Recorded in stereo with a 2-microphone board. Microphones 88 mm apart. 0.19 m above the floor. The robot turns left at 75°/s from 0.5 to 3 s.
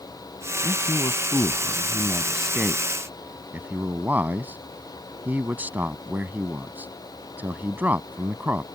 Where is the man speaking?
20° left (ahead or behind); by 8.7 s 20° right (ahead or behind).